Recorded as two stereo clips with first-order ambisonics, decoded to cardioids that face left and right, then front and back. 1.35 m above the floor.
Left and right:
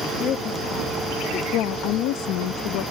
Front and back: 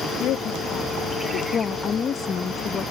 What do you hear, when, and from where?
0.2 s a woman speaking: 40° left
1.5 s a woman speaking: 65° left